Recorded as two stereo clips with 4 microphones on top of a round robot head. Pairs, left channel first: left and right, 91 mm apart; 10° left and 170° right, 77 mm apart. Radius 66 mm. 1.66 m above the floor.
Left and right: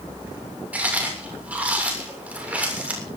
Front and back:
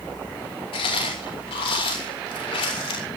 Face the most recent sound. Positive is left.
turn(degrees=-15)